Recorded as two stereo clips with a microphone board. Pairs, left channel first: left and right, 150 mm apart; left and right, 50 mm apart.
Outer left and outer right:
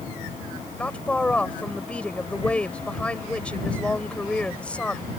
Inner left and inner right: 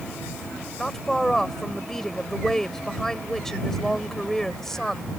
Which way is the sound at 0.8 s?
10° left (ahead or behind).